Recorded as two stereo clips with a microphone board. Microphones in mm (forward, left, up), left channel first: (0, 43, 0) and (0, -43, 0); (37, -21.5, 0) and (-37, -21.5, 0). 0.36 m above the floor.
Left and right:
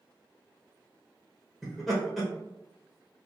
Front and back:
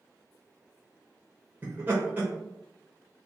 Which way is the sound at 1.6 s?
Straight behind.